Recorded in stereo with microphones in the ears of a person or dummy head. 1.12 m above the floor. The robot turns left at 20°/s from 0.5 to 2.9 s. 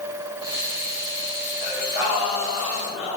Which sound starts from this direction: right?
Singing, at 1.6 s.